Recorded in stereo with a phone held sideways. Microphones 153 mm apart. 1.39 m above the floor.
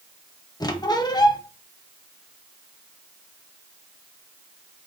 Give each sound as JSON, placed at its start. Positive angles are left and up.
{"t": 0.6, "sound": "a squeak", "side_deg": 25, "distance_m": 0.5}